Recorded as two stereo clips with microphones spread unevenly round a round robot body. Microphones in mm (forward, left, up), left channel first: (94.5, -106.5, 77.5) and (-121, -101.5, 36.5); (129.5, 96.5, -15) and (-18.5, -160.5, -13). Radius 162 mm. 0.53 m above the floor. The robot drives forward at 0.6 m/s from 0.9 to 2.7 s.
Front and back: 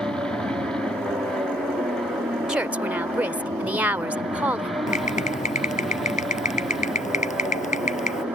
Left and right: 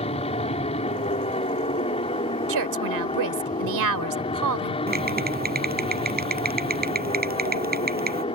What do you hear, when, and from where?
0.0 s an aircraft: 105° left; by 8.3 s 110° left
2.5 s a woman speaking: 100° right; by 4.8 s 105° right
4.9 s typing on a keyboard: 60° right